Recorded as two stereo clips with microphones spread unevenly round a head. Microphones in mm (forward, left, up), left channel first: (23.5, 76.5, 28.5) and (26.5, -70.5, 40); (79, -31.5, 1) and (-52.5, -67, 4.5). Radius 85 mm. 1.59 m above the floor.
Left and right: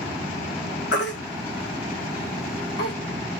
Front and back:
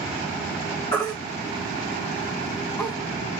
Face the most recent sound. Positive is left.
turn(degrees=95)